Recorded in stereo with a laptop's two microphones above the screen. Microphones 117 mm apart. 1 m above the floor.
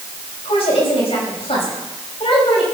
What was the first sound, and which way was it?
A woman speaking, 60° left (ahead or behind).